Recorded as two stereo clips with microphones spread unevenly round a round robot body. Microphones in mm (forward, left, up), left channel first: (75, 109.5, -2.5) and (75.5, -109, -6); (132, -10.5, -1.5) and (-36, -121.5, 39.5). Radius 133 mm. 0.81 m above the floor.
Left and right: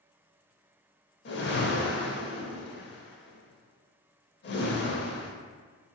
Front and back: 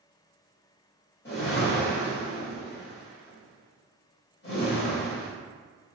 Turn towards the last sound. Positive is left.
turn(degrees=85)